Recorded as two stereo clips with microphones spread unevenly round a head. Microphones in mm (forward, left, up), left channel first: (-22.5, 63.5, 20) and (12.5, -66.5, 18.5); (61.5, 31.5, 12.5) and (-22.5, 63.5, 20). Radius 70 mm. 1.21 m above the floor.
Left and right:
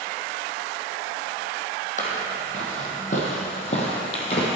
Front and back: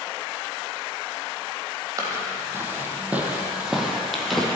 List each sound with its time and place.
2.0 s footsteps: 120° left, 1.9 m; by 4.5 s 65° left, 1.8 m